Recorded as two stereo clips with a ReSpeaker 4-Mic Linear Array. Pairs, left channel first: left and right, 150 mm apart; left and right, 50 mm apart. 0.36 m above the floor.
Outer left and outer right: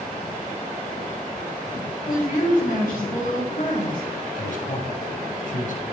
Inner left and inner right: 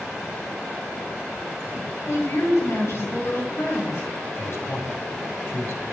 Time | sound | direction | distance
2.1 | a woman speaking | 65° left (ahead or behind) | 4.5 m
4.4 | a man speaking | 60° left (ahead or behind) | 1.7 m